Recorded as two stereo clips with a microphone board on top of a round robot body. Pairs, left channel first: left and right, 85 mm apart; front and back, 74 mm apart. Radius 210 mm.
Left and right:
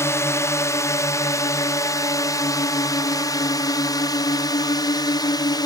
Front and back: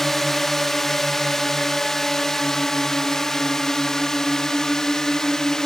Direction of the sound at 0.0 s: 85° left.